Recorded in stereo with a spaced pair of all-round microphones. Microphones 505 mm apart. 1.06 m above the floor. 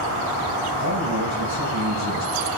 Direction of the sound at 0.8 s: 30° right (ahead or behind).